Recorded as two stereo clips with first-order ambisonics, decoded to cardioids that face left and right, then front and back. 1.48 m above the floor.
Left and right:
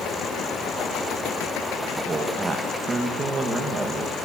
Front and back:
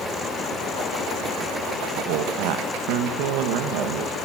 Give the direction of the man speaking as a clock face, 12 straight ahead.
6 o'clock.